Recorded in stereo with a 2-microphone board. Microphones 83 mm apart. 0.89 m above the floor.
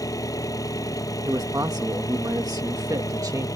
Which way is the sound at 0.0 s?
45° left (ahead or behind).